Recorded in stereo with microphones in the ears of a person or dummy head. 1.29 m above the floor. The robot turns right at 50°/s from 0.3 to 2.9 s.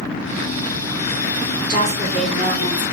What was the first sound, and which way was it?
A woman speaking, 25° right.